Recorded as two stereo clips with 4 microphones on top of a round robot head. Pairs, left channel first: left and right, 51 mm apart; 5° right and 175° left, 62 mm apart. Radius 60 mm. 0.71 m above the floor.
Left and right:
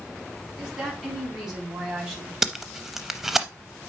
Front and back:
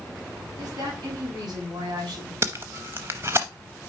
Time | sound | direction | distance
0.6 | a woman speaking | 165° right | 5.5 m
2.4 | tape being pulled | 170° right | 0.5 m